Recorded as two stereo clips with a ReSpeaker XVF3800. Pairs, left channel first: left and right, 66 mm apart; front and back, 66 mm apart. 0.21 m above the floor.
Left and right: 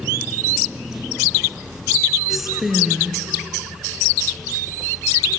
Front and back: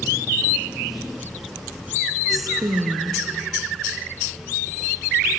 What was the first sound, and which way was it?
A woman speaking, 175° right.